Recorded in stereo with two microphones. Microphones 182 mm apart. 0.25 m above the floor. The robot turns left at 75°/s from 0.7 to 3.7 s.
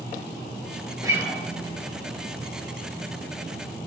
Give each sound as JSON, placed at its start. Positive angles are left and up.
{"t": 1.0, "sound": "a guitar", "side_deg": -20, "distance_m": 0.6}